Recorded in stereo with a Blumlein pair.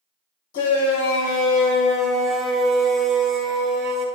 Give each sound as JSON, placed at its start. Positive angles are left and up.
{"t": 0.5, "sound": "a shout", "azimuth_deg": 45, "distance_m": 2.5}